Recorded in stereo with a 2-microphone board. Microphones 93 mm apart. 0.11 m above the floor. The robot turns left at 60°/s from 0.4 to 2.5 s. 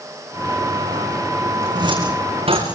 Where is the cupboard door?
40° right (ahead or behind), 6 m; by 2.7 s 80° right, 6 m.